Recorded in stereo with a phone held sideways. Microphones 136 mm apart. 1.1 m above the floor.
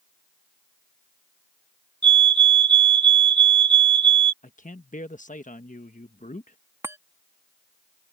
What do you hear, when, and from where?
2.0 s a fire alarm: 35° right (ahead or behind)
4.4 s a man speaking: 70° left (ahead or behind)
6.8 s a chime: 20° right (ahead or behind)